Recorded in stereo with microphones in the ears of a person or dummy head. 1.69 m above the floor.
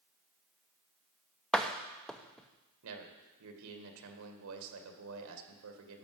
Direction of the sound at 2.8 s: 80° right.